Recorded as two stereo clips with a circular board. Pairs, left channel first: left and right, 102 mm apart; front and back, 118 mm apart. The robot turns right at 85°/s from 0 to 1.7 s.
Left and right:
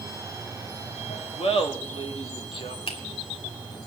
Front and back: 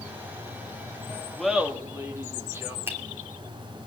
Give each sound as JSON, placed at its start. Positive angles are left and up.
{"t": 0.0, "sound": "running water", "azimuth_deg": -15, "distance_m": 3.5}
{"t": 1.4, "sound": "laughter", "azimuth_deg": 85, "distance_m": 2.0}
{"t": 2.9, "sound": "a finger snap", "azimuth_deg": 110, "distance_m": 3.0}